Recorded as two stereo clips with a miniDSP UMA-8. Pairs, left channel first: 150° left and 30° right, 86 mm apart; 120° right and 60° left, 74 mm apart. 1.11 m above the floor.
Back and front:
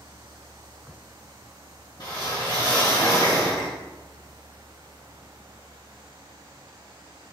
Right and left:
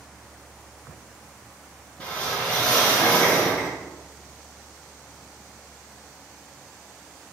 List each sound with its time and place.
2.0 s a whoosh: 170° left, 2.5 m